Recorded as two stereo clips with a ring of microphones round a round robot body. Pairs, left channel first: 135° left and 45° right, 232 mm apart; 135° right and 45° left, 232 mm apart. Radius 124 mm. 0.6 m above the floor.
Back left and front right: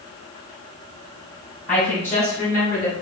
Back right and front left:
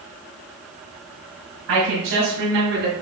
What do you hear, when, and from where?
1.7 s a woman speaking: 50° left, 3 m; by 2.9 s 70° left, 2 m